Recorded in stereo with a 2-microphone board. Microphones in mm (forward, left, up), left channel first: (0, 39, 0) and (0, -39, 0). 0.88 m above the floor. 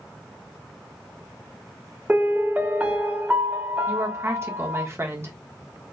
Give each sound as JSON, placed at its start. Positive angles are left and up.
{"t": 2.1, "sound": "a piano", "side_deg": -20, "distance_m": 0.8}
{"t": 3.9, "sound": "a woman speaking", "side_deg": -35, "distance_m": 1.2}